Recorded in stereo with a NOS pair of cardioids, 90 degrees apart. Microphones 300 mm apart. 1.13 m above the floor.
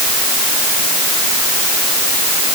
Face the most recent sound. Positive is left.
No sound to turn to.